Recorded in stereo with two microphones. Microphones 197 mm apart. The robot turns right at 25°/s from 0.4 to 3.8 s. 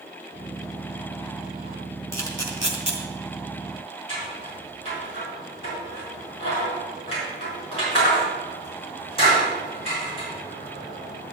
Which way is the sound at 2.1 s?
15° left (ahead or behind).